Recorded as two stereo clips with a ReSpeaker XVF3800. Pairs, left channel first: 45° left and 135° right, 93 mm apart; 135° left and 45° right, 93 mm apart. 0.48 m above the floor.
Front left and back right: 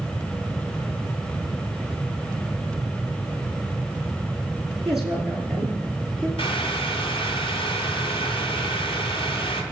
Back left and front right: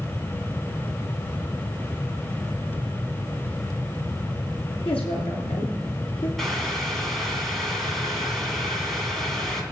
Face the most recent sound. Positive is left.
turn(degrees=50)